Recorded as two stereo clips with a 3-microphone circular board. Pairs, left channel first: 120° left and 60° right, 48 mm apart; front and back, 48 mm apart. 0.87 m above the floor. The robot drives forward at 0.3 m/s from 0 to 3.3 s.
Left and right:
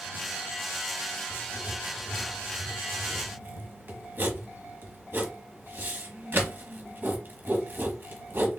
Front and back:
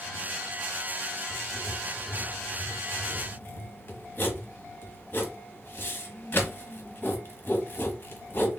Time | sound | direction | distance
1.3 | writing | 20° right | 1.7 m